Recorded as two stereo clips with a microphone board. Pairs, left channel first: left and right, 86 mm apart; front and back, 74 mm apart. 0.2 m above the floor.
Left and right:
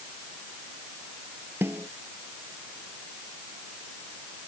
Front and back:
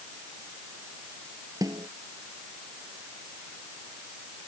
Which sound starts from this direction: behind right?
A snare drum, at 1.6 s.